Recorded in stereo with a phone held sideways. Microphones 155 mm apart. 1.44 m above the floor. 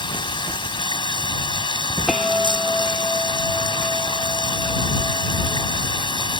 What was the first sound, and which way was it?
Running water, 30° left (ahead or behind).